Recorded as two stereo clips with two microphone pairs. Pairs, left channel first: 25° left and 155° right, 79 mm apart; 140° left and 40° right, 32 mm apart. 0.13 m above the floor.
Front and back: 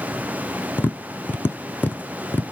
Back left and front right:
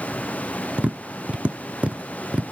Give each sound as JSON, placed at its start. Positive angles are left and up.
{"t": 0.8, "sound": "tapping", "azimuth_deg": -25, "distance_m": 0.6}